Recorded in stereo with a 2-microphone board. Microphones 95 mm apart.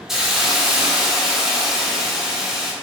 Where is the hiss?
5° right (ahead or behind), 0.9 m.